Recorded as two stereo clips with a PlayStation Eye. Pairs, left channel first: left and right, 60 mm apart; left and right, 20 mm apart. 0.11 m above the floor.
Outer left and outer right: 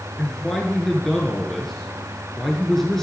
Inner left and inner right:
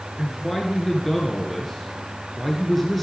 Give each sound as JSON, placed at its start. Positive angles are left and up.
{"t": 0.2, "sound": "a man speaking", "side_deg": 10, "distance_m": 1.2}